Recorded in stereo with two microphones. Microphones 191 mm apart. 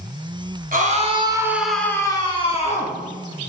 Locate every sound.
0.7 s a scream: 45° right (ahead or behind), 1.8 m; by 3.0 s 40° left (ahead or behind), 2.5 m